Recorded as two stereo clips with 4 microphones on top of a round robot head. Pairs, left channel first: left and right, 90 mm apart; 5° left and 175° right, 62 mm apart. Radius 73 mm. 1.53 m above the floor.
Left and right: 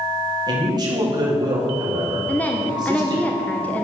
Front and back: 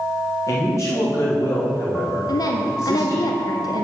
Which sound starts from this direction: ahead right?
A man speaking, at 0.5 s.